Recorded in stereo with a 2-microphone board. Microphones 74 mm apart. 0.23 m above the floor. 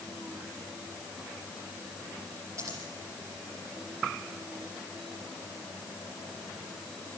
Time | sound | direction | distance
2.6 | scissors | 40° right (ahead or behind) | 8 m